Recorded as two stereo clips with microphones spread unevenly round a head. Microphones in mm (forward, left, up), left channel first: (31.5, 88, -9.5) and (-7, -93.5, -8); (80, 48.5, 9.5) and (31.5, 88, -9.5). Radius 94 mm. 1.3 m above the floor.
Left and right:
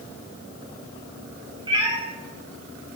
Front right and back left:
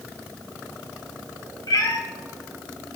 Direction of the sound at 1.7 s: 35° right.